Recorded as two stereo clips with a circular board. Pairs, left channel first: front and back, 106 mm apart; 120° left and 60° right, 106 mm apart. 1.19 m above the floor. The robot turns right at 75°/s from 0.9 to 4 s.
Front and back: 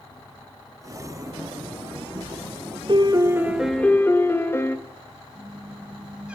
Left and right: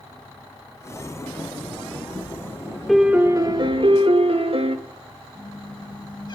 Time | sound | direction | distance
2.9 | a piano | 150° right | 1.4 m
5.3 | a squeak | 105° left | 1.4 m